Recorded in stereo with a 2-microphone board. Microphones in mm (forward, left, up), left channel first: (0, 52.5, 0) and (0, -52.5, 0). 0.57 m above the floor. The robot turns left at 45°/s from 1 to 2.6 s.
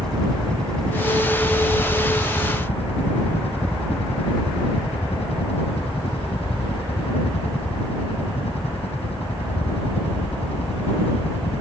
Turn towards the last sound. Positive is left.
turn(degrees=100)